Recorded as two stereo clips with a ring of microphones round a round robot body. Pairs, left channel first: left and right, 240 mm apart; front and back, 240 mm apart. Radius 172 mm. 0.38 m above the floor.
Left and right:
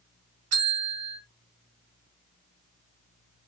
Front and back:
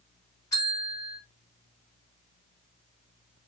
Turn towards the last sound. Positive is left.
turn(degrees=-80)